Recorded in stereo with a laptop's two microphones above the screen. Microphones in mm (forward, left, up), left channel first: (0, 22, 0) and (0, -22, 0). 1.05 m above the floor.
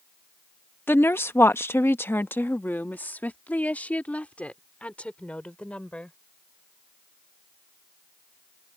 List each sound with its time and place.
0.9 s a woman speaking: 60° left (ahead or behind); by 6.2 s 30° left (ahead or behind)